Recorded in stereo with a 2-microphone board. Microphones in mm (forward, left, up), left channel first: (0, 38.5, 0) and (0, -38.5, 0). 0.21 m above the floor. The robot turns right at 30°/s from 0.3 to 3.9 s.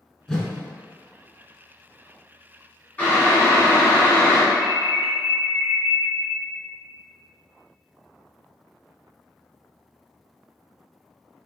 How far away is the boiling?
About 1.4 m.